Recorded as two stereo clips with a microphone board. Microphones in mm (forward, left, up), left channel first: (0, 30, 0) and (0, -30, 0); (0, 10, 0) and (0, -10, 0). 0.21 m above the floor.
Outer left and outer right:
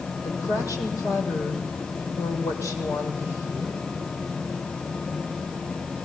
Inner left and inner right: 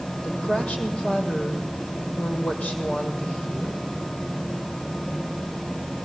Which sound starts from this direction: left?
A woman speaking, at 0.2 s.